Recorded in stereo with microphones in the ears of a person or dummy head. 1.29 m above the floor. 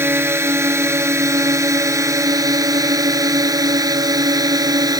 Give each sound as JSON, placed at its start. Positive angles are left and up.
{"t": 0.0, "sound": "a drone", "side_deg": -10}